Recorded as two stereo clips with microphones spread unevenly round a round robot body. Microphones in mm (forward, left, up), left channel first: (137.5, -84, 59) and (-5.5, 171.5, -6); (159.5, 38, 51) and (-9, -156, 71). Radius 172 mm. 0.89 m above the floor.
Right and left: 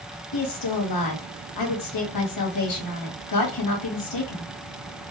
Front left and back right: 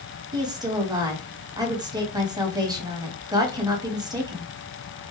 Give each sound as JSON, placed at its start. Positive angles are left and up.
{"t": 0.3, "sound": "a woman speaking", "azimuth_deg": -55, "distance_m": 1.9}